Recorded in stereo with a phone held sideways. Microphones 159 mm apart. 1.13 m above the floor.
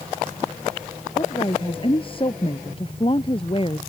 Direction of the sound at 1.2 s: 35° left (ahead or behind).